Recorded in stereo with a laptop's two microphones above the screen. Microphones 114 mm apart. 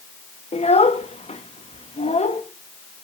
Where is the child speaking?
70° left (ahead or behind), 0.7 m.